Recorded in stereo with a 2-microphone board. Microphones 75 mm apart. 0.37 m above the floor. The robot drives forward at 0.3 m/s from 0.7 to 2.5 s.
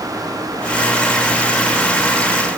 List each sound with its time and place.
Only background noise.